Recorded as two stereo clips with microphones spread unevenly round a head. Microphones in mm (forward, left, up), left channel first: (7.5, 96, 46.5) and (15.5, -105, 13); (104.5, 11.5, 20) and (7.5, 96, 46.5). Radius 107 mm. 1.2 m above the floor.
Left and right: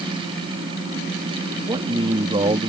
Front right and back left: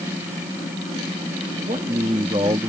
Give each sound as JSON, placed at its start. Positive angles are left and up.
{"t": 1.7, "sound": "a man speaking", "azimuth_deg": -160}